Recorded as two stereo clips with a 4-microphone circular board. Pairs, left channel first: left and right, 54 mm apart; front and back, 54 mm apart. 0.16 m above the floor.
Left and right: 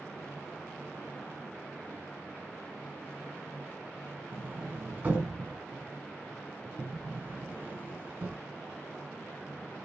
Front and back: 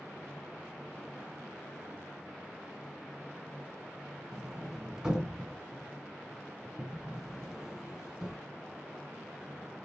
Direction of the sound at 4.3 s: 125° right.